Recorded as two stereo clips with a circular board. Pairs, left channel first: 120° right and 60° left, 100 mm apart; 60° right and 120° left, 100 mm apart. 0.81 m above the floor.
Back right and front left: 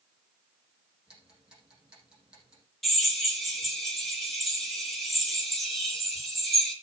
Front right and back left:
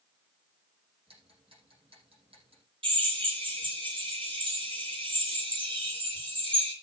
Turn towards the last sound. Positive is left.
turn(degrees=155)